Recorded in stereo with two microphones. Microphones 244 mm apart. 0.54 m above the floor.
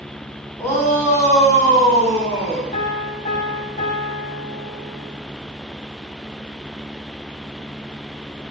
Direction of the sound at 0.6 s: 10° left (ahead or behind).